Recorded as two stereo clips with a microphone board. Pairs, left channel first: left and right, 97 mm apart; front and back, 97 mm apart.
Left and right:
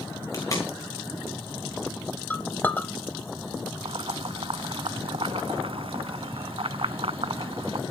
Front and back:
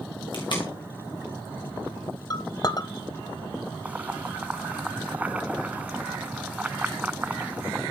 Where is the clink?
25° left, 1.0 m.